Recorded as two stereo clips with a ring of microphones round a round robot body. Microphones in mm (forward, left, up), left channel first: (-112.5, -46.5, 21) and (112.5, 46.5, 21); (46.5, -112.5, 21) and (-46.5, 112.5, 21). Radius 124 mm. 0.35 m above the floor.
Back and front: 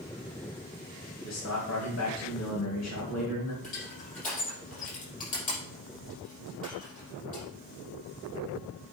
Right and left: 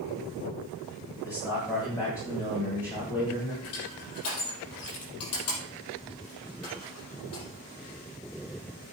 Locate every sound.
1.2 s a man speaking: 140° right, 2.5 m
3.6 s crushing: 100° right, 5.5 m